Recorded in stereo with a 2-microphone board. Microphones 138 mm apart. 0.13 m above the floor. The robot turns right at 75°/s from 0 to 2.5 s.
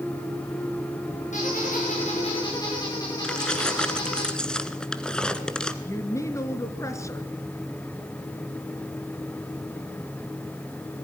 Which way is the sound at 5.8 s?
20° left (ahead or behind).